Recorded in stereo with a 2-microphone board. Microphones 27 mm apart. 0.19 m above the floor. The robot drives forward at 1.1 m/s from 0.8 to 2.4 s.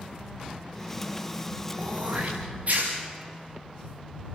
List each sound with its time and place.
1.8 s throat clearing: 50° right (ahead or behind), 6 m; by 2.9 s 45° right (ahead or behind), 6.5 m